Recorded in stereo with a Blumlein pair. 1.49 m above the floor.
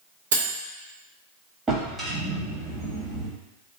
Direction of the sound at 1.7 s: 20° right.